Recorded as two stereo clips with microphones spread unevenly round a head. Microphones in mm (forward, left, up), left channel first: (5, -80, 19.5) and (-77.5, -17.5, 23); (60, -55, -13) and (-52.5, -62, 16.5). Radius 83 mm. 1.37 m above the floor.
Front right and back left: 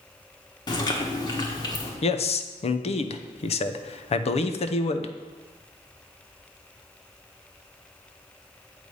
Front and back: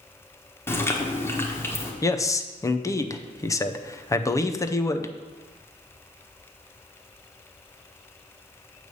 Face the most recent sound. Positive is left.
turn(degrees=-55)